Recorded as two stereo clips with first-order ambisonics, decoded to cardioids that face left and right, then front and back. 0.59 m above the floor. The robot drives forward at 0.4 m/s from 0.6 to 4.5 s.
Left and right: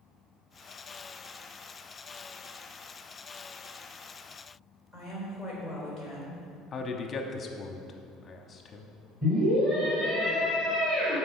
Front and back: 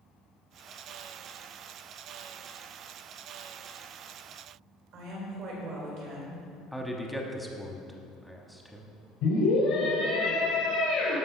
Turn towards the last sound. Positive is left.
turn(degrees=-30)